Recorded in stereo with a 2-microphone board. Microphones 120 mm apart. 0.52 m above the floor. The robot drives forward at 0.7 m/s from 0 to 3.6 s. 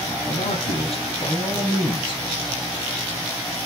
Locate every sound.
0.3 s a man speaking: 65° left (ahead or behind), 3 m; by 2.2 s 50° left (ahead or behind), 3.5 m